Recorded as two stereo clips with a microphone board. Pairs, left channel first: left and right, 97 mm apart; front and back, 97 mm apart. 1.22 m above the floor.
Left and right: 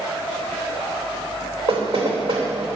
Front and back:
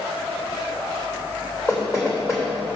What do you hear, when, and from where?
1.7 s knocking: 60° right, 3 m